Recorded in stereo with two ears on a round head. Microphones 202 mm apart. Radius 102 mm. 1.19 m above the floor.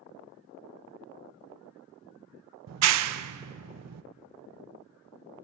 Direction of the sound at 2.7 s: 70° right (ahead or behind).